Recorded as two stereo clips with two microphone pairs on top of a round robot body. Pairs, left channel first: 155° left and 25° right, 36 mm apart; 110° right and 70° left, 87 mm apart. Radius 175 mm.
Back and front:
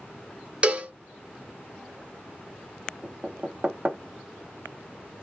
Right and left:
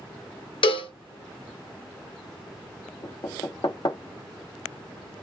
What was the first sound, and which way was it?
A cowbell, 85° right.